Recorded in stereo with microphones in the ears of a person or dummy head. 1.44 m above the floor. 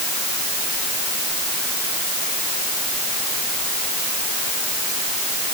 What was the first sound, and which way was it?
Only background noise.